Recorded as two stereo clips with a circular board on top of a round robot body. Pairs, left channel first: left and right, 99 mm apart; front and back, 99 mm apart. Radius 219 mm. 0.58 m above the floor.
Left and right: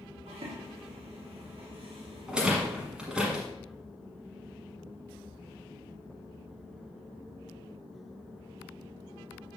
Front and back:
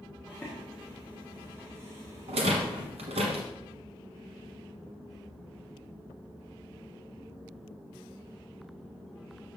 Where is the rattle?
170° right, 1.2 m.